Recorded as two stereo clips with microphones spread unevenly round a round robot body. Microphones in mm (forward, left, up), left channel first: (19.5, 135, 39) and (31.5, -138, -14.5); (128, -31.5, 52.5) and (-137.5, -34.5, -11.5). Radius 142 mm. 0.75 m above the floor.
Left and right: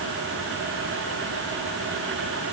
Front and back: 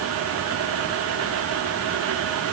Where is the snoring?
No snoring in this recording.